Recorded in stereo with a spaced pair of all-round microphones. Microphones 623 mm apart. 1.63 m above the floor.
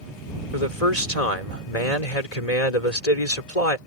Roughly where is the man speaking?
Left.